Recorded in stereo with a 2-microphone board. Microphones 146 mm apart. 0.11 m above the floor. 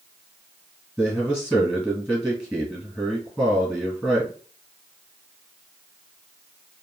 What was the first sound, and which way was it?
A man speaking, centre (ahead or behind).